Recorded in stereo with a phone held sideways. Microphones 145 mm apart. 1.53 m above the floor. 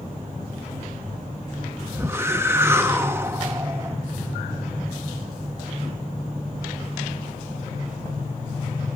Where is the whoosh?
15° right (ahead or behind), 0.9 m.